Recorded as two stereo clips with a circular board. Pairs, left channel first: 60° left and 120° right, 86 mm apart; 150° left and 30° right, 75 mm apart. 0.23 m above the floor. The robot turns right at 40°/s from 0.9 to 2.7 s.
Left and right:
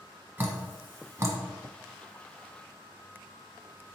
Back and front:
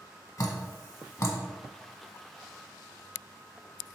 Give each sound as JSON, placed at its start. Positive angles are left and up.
{"t": 0.4, "sound": "dripping", "azimuth_deg": 180, "distance_m": 0.7}